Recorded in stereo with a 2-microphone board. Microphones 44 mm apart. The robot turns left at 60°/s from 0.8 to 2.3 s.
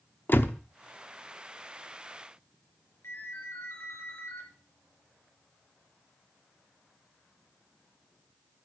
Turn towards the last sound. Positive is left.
turn(degrees=75)  # may be behind; listen again after turning